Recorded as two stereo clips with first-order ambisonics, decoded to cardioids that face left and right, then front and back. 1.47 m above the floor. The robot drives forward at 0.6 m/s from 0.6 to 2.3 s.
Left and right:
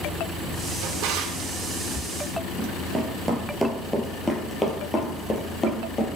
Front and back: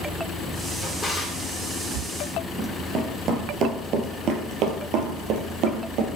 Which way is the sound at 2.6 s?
145° right.